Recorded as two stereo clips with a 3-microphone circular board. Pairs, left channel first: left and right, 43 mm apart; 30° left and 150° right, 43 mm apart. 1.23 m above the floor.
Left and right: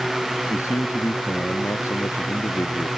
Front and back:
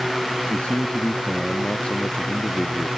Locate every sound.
0.5 s a man speaking: 95° left